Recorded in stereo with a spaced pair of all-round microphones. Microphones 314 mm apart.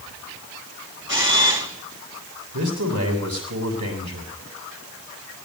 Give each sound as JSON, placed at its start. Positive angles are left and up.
{"t": 1.1, "sound": "a camera shutter", "side_deg": -35, "distance_m": 1.9}
{"t": 2.5, "sound": "a man speaking", "side_deg": -75, "distance_m": 7.5}